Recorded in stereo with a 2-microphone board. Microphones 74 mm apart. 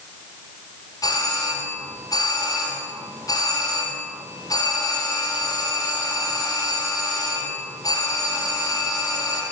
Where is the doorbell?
55° left (ahead or behind), 4.5 m.